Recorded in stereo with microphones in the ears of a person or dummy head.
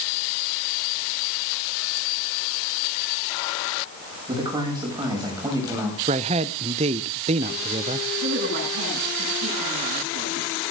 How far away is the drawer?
No drawer in this recording.